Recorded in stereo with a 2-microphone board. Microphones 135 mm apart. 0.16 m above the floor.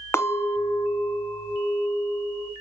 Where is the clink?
20° left (ahead or behind), 0.7 m.